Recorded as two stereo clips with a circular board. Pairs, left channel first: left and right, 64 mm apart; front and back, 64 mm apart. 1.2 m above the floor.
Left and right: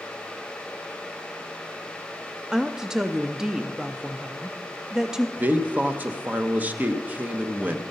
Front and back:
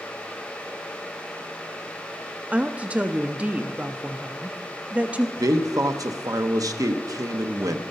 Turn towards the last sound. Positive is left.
turn(degrees=-155)